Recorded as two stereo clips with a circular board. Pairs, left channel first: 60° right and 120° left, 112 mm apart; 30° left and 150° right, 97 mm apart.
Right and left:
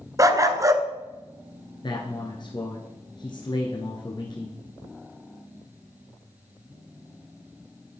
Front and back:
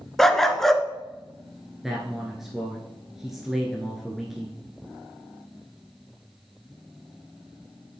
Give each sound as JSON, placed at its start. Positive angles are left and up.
{"t": 0.2, "sound": "a dog barking", "azimuth_deg": 115, "distance_m": 0.6}
{"t": 1.8, "sound": "a man speaking", "azimuth_deg": -65, "distance_m": 1.3}